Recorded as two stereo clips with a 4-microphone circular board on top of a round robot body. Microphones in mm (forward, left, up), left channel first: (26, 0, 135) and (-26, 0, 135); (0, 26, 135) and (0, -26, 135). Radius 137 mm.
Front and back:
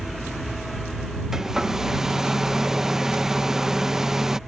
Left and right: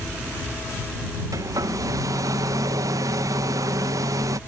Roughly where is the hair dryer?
Right.